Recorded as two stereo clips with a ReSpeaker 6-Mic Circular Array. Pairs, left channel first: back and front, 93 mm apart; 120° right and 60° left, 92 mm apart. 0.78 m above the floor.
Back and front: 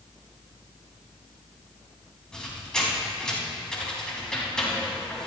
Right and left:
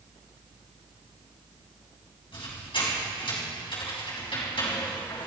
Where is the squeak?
95° right, 3.5 m.